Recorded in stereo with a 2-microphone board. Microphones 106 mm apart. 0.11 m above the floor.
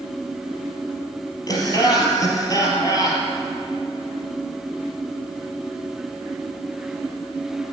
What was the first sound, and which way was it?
Laughter, 35° left (ahead or behind).